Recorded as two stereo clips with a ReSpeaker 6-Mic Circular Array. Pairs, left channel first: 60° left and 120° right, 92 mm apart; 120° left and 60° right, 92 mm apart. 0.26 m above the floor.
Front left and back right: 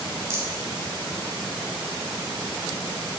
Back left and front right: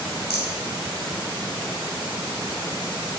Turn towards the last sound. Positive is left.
turn(degrees=-110)